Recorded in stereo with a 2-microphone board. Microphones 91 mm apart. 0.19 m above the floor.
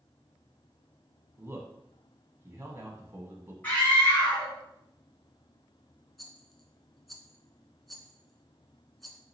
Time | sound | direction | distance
1.4 | a man speaking | 30° right (ahead or behind) | 1.1 m
3.6 | a scream | 20° left (ahead or behind) | 1.6 m
6.2 | a rattle | centre (ahead or behind) | 0.7 m